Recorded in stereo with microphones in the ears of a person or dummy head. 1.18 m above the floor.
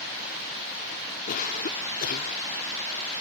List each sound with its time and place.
1.3 s a cough: 45° left (ahead or behind)